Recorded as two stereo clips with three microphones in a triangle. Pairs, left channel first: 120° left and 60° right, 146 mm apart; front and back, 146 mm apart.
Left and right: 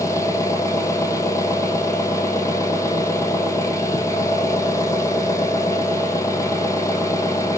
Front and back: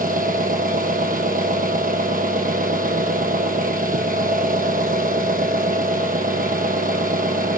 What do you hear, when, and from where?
0.0 s an engine running: 170° right, 1.0 m